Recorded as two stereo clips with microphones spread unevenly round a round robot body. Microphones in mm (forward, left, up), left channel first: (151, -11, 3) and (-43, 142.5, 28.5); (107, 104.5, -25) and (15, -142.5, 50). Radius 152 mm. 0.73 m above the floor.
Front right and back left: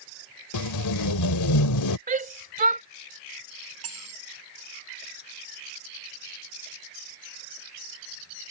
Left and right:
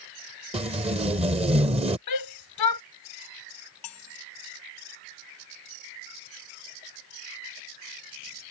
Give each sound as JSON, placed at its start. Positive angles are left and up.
{"t": 0.5, "sound": "tape being pulled", "azimuth_deg": -40}
{"t": 2.1, "sound": "a shout", "azimuth_deg": 85}
{"t": 3.8, "sound": "cutlery clinking", "azimuth_deg": 115}